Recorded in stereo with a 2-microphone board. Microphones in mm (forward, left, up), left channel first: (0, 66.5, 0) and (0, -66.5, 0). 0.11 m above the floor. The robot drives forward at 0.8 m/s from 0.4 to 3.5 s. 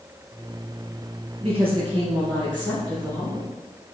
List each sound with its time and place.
1.4 s a woman speaking: 50° right (ahead or behind), 1.9 m; by 3.5 s 30° right (ahead or behind), 3 m